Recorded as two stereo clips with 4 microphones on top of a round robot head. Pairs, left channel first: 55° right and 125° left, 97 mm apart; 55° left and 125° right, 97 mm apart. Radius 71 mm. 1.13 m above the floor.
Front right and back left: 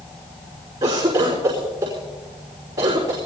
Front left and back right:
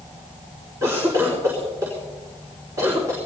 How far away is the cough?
About 4 m.